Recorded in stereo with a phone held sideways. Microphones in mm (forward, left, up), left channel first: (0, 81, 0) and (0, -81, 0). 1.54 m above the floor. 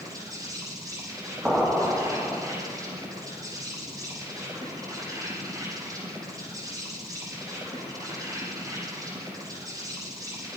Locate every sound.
0.0 s an insect: 20° right (ahead or behind), 7.5 m
1.4 s an explosion: 5° right (ahead or behind), 3 m